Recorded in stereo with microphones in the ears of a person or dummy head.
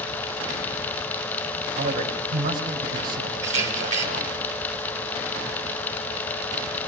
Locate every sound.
1.8 s a man speaking: 50° right (ahead or behind), 7.5 m
3.4 s a camera shutter: 40° right (ahead or behind), 5.5 m